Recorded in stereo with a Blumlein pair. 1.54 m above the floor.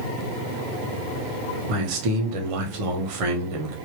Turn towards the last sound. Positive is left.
turn(degrees=-45)